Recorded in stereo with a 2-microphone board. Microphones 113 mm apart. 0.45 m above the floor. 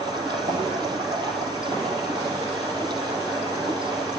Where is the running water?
40° right (ahead or behind), 4.5 m.